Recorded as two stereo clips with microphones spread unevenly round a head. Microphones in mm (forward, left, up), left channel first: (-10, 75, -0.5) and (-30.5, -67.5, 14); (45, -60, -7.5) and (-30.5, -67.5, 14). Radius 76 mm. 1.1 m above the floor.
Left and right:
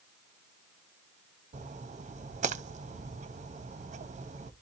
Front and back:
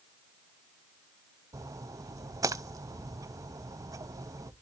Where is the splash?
135° right, 0.7 m.